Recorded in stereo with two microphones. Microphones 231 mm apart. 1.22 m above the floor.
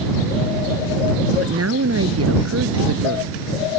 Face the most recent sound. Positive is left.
turn(degrees=-80)